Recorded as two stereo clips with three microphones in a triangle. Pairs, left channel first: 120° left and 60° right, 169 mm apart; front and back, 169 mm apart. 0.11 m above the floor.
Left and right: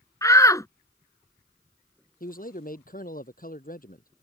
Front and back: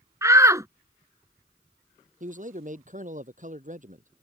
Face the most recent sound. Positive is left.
turn(degrees=145)